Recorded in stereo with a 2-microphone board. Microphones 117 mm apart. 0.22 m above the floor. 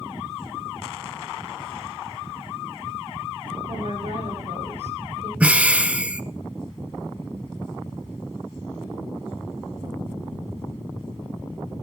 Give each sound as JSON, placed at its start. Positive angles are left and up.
{"t": 3.7, "sound": "a woman speaking", "side_deg": -65, "distance_m": 9.5}
{"t": 5.4, "sound": "breathing", "side_deg": -10, "distance_m": 1.0}